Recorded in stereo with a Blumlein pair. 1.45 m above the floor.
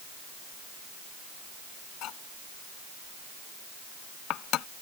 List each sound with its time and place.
2.0 s cutlery clinking: 35° left